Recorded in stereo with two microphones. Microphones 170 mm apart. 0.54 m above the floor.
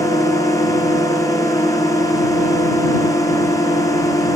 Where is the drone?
20° left (ahead or behind).